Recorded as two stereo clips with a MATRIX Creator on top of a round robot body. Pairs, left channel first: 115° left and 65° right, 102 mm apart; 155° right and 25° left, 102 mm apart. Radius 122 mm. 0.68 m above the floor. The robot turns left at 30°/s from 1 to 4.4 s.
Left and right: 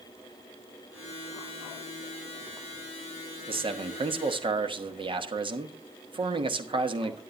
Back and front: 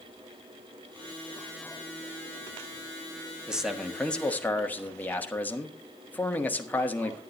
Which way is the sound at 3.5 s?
60° right.